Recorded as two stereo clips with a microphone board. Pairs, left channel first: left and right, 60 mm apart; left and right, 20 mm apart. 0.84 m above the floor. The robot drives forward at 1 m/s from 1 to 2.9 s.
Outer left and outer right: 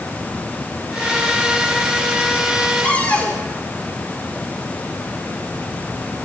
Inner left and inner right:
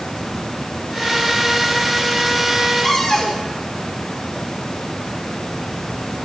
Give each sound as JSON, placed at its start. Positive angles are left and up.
{"t": 2.8, "sound": "a cupboard door", "side_deg": 25, "distance_m": 3.0}